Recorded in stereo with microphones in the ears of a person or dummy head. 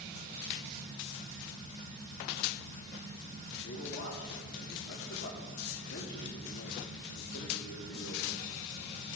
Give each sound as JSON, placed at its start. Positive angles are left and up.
{"t": 3.6, "sound": "a man speaking", "side_deg": 75, "distance_m": 1.7}